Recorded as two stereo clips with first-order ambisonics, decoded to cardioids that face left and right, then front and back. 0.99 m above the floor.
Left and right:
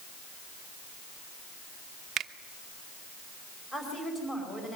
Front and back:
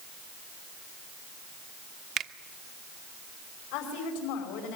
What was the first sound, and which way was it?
A finger snap, 140° right.